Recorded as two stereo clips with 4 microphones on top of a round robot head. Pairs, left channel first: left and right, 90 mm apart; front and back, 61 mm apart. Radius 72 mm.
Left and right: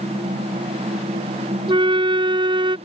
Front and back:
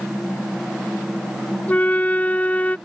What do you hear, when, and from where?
1.7 s a flute: 65° right